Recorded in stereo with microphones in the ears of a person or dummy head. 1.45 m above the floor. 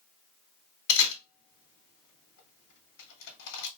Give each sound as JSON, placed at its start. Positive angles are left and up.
{"t": 0.9, "sound": "a camera shutter", "side_deg": 70, "distance_m": 1.8}